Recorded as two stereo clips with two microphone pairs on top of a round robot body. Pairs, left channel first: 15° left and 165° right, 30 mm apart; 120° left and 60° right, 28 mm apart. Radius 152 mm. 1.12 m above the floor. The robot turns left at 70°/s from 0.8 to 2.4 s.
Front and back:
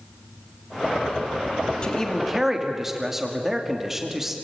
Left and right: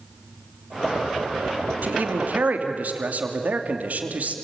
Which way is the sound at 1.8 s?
45° right.